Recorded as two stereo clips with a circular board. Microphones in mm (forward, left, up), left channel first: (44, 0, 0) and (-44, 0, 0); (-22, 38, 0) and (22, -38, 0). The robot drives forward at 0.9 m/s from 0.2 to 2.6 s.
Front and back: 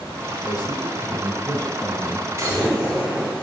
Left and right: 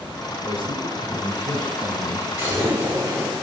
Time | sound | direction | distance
0.4 | a man speaking | 55° right | 4 m
2.4 | an explosion | 125° right | 6 m